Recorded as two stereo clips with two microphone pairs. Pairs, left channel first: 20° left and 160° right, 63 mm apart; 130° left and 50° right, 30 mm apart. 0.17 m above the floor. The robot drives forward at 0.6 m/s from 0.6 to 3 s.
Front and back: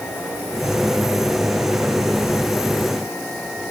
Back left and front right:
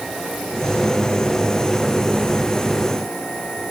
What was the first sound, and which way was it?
Only background noise.